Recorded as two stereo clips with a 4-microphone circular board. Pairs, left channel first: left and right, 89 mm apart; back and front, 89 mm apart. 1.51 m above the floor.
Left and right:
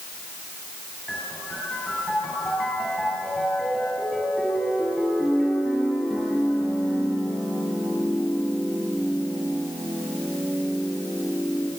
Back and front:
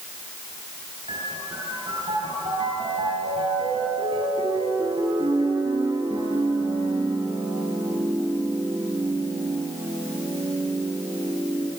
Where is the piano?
Straight ahead, 9.5 m.